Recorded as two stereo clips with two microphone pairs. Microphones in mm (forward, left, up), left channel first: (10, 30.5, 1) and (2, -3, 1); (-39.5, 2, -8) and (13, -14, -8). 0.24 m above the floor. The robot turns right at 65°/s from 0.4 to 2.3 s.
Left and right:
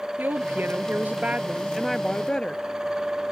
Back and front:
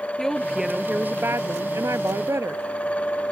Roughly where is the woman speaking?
Behind right.